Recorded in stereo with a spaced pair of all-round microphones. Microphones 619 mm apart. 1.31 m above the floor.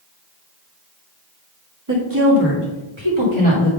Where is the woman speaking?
30° right (ahead or behind), 2.0 m; by 3.7 s 60° right (ahead or behind), 2.5 m.